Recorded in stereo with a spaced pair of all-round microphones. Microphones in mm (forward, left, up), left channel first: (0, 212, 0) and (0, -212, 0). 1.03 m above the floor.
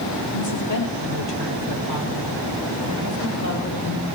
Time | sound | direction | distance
0.3 | a woman speaking | 80° left | 3.5 m